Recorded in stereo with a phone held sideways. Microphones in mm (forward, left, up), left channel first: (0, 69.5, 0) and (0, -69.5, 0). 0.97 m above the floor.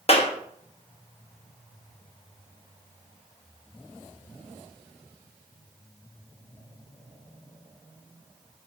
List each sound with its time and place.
0.1 s a clap: 45° left (ahead or behind), 1.0 m